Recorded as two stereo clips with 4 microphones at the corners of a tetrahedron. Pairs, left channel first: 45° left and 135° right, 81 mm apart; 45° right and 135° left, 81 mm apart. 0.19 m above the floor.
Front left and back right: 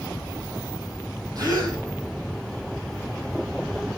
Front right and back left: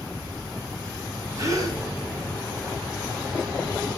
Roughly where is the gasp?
Behind.